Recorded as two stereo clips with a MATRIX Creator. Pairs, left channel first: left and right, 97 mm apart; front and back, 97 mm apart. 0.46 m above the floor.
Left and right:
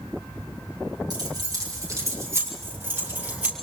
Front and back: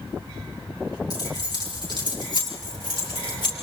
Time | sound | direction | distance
1.1 | keys jangling | 45° right | 5 m